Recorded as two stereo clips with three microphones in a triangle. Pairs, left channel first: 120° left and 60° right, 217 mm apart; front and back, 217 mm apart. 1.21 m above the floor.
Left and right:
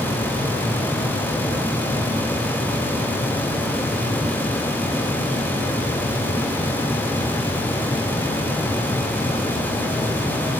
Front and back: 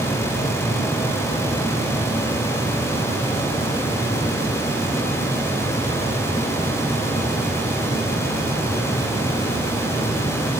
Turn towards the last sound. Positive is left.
No sound to turn to.